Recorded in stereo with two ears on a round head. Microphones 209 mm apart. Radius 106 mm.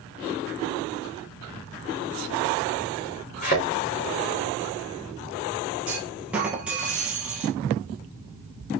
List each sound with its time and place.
3.4 s a thud: 35° left (ahead or behind), 4 m
5.9 s a clunk: 5° right (ahead or behind), 1.8 m